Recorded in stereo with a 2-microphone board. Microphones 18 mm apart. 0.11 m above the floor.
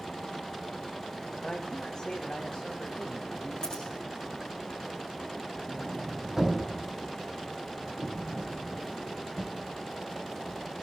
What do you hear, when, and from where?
1.4 s a man speaking: 30° left (ahead or behind), 7 m
3.6 s scissors: 35° left (ahead or behind), 10 m
5.7 s a sliding door: 20° right (ahead or behind), 5 m